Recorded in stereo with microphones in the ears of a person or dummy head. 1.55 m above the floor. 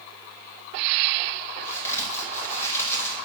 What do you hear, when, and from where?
1.6 s a crack: 15° left (ahead or behind), 1.1 m